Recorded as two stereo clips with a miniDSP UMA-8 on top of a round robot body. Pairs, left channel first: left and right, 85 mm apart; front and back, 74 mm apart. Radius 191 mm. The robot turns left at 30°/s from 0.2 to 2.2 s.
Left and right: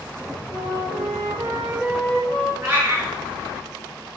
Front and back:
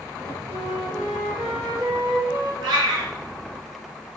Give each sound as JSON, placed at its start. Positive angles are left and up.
{"t": 0.5, "sound": "a flute", "azimuth_deg": -130, "distance_m": 3.0}
{"t": 2.6, "sound": "a cat meowing", "azimuth_deg": -160, "distance_m": 3.5}